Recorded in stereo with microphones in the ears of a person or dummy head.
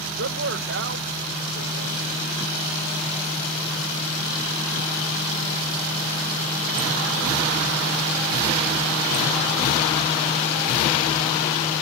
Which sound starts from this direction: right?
A man speaking, at 0.2 s.